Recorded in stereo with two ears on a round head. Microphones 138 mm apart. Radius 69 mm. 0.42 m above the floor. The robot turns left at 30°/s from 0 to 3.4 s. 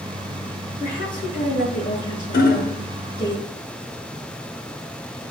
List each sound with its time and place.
0.8 s a woman speaking: 130° left, 6 m; by 3.3 s 55° left, 6 m
2.3 s hammering: 55° left (ahead or behind), 0.9 m